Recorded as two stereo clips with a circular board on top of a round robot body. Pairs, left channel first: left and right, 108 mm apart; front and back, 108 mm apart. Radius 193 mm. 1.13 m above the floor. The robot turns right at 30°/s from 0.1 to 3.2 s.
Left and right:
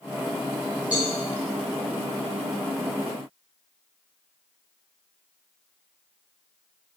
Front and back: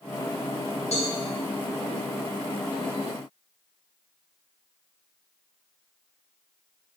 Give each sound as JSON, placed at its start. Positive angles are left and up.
{"t": 0.9, "sound": "a cowbell", "azimuth_deg": -15, "distance_m": 4.0}